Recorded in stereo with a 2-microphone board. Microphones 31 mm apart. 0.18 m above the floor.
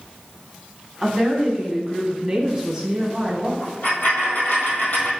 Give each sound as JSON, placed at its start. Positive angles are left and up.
{"t": 1.0, "sound": "a woman speaking", "side_deg": -15, "distance_m": 1.1}
{"t": 3.6, "sound": "a dropped coin", "side_deg": 65, "distance_m": 1.6}